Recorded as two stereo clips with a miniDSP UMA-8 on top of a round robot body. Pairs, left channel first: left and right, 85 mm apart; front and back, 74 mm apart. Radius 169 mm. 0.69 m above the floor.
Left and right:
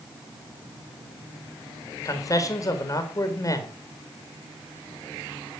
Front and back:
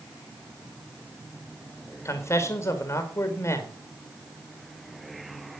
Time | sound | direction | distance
2.0 | a man speaking | 45° left | 2 m